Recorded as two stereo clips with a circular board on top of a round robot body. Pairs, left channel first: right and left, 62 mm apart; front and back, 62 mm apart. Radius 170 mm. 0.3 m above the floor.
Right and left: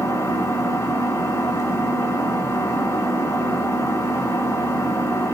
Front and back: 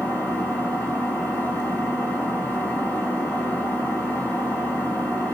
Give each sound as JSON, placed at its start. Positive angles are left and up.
{"t": 0.0, "sound": "an engine running", "azimuth_deg": -60, "distance_m": 4.0}